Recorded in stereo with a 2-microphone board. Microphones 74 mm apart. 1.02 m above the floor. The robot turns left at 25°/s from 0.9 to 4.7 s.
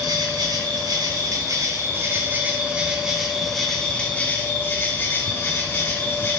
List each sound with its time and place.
0.0 s an insect: 115° right, 2 m; by 6.4 s 150° left, 2 m